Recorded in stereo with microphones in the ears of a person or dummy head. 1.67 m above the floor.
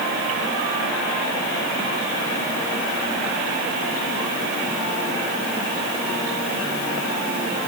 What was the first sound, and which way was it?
Only background noise.